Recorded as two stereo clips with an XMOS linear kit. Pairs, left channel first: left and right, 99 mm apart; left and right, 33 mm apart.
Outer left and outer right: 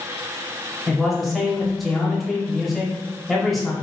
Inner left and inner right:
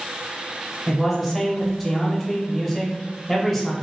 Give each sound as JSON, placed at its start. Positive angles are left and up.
{"t": 0.9, "sound": "a man speaking", "side_deg": 0, "distance_m": 1.0}